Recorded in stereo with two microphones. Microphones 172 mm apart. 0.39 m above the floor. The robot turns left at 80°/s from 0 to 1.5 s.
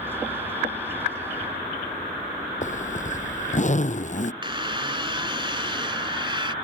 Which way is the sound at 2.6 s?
40° left (ahead or behind).